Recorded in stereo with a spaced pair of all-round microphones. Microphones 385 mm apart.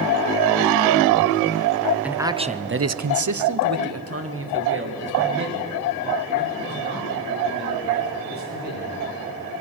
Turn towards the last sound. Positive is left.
turn(degrees=-25)  # may be behind; listen again after turning